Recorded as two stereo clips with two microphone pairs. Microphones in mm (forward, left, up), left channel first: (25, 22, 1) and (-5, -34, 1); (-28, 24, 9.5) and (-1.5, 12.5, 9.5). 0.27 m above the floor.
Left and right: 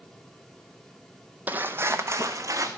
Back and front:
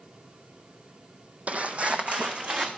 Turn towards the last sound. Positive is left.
turn(degrees=-80)